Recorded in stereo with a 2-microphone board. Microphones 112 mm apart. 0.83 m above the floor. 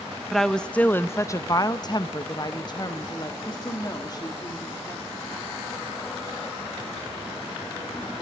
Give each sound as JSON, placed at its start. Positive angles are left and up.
{"t": 0.3, "sound": "a woman speaking", "side_deg": 0, "distance_m": 0.7}